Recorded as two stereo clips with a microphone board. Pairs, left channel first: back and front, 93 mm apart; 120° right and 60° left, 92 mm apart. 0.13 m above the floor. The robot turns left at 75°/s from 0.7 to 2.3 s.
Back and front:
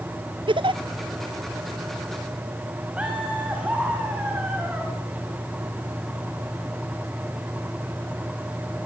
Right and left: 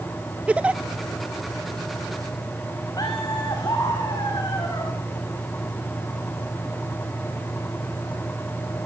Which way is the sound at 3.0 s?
75° right.